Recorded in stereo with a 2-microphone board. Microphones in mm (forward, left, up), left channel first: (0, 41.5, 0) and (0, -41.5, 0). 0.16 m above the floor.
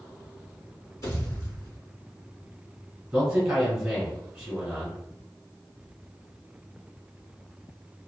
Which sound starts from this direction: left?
A pop, at 1.0 s.